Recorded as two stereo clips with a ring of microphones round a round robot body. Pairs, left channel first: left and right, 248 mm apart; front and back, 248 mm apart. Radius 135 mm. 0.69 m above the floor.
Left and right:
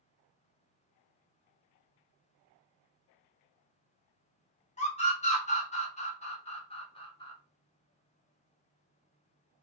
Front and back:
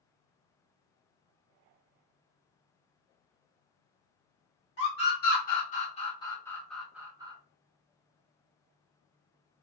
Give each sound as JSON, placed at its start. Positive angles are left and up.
{"t": 4.8, "sound": "a scream", "azimuth_deg": 35, "distance_m": 1.5}